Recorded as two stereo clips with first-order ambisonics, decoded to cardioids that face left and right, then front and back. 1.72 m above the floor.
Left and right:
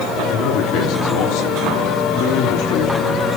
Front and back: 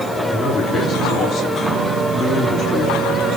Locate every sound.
0.3 s a man speaking: 75° left, 3.5 m